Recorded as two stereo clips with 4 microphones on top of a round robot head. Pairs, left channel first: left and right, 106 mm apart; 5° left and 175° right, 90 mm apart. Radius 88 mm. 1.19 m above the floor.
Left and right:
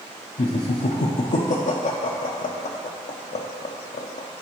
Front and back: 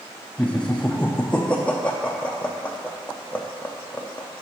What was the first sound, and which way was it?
Laughter, 85° left.